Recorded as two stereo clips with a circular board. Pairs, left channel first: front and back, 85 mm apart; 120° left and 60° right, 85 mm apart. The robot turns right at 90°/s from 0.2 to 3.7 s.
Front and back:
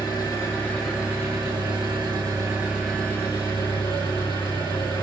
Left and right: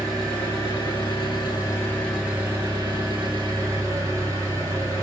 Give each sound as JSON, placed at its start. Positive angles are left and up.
{"t": 0.0, "sound": "an engine running", "azimuth_deg": 30, "distance_m": 1.5}